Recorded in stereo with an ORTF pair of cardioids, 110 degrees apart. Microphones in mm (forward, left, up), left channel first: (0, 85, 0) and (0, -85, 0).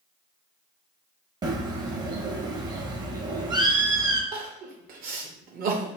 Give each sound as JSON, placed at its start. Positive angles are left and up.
{"t": 1.4, "sound": "a bird", "azimuth_deg": -25, "distance_m": 0.6}
{"t": 4.3, "sound": "crying", "azimuth_deg": -55, "distance_m": 0.7}